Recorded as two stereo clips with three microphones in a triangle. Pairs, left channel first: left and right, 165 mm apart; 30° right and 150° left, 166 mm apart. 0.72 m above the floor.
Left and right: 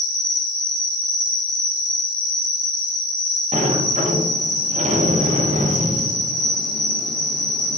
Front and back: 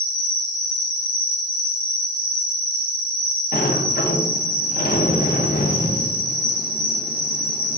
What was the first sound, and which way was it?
An insect, 5° left.